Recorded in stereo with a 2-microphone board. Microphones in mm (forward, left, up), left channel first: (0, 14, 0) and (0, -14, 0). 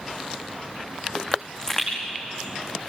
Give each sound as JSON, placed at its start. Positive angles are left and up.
{"t": 1.3, "sound": "a pop", "side_deg": 15, "distance_m": 8.5}